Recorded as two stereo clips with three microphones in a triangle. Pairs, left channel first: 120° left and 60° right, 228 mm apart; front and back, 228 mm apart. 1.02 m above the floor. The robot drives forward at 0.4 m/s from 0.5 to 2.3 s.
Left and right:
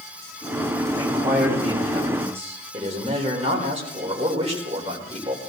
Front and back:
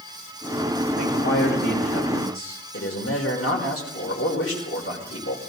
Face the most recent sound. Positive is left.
turn(degrees=5)